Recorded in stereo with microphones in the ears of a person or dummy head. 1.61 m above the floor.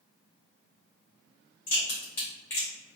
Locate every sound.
1.7 s a crack: 15° left (ahead or behind), 1.6 m